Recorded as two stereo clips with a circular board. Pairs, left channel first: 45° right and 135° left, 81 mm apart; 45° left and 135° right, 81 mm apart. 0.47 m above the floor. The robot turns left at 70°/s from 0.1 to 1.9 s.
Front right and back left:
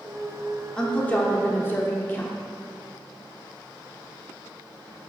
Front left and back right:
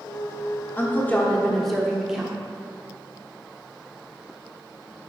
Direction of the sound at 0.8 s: 25° left.